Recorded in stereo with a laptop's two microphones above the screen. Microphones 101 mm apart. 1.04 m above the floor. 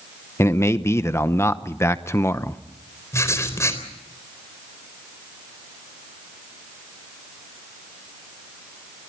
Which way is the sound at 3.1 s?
30° left (ahead or behind).